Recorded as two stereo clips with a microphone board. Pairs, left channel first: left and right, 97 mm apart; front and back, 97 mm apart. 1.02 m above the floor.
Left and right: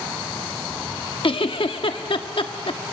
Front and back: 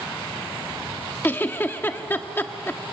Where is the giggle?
70° left, 1.0 m.